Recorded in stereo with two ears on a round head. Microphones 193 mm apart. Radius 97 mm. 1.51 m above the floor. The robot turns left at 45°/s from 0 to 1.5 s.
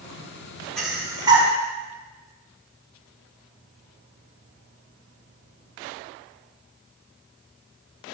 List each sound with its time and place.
0.8 s breathing: centre (ahead or behind), 4.5 m; by 1.5 s 30° right (ahead or behind), 4.5 m